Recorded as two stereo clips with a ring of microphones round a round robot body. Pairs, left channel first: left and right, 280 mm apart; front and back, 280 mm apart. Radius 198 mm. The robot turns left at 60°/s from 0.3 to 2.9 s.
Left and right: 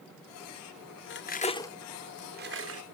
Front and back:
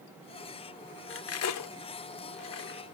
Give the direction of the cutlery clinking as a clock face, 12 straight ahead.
11 o'clock.